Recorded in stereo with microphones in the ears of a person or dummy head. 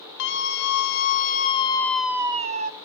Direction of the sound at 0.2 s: 60° left (ahead or behind).